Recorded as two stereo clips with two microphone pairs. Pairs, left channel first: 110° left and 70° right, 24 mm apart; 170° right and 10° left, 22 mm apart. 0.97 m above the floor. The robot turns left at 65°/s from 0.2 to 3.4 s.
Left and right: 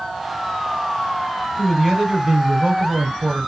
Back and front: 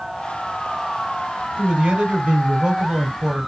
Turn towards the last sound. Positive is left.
turn(degrees=-90)